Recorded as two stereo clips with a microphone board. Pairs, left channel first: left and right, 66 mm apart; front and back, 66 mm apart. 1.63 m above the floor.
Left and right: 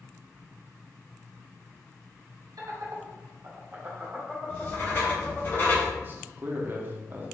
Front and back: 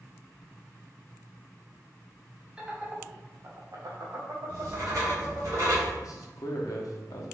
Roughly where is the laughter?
Right.